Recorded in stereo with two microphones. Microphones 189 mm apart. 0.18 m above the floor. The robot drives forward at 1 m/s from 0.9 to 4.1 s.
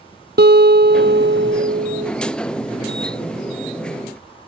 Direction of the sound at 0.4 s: 60° right (ahead or behind).